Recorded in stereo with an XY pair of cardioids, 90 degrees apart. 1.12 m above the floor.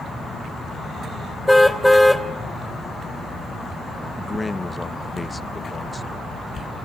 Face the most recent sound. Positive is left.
turn(degrees=25)